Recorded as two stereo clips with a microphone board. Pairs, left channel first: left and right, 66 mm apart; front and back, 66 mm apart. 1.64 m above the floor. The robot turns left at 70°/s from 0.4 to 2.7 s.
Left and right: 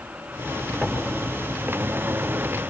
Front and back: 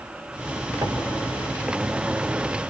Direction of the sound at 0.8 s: 165° left.